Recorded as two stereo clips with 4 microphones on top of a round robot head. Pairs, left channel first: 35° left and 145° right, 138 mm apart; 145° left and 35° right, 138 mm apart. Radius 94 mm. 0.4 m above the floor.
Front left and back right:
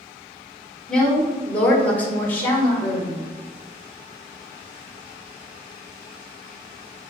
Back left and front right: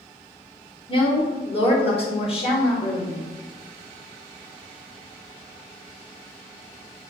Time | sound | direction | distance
0.9 | a woman speaking | 115° left | 1.7 m